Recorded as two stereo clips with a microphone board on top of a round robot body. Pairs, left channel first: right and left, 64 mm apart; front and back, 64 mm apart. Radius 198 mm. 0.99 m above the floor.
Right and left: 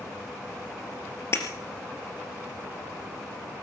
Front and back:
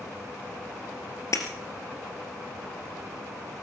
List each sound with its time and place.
1.3 s breaking glass: 40° right, 2.5 m